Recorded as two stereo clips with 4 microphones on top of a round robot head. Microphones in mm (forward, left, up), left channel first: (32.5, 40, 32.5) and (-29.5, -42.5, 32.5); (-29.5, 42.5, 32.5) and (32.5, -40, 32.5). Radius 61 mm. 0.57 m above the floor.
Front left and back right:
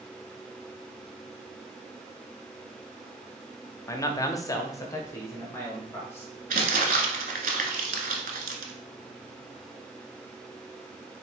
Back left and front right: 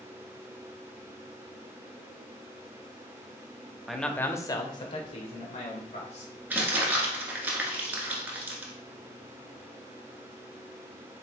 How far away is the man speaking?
About 0.6 m.